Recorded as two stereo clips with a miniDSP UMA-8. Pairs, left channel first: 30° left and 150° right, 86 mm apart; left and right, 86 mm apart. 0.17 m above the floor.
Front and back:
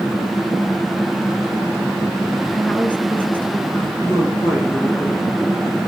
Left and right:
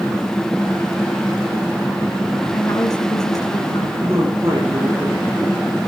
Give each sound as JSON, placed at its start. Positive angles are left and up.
{"t": 2.5, "sound": "a woman speaking", "azimuth_deg": 95, "distance_m": 2.0}
{"t": 4.0, "sound": "a man speaking", "azimuth_deg": -30, "distance_m": 6.0}